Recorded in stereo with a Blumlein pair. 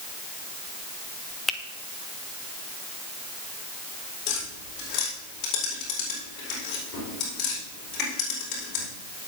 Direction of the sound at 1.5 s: 15° left.